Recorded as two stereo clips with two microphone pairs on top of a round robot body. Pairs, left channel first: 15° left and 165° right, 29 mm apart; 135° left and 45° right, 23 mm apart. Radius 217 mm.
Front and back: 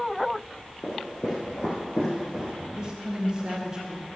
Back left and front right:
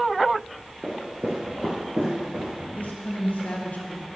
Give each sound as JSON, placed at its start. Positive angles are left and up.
{"t": 0.8, "sound": "footsteps", "azimuth_deg": 20, "distance_m": 1.5}
{"t": 2.8, "sound": "a woman speaking", "azimuth_deg": 135, "distance_m": 1.8}